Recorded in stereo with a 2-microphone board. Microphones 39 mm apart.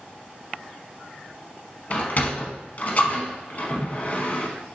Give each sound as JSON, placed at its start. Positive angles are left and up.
{"t": 1.9, "sound": "a sliding door", "side_deg": 45, "distance_m": 0.9}